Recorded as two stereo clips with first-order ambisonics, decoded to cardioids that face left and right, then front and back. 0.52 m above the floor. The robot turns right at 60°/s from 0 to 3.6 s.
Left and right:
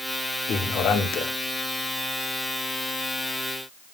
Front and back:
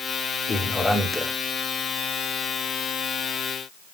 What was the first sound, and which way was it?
A man speaking, 55° left.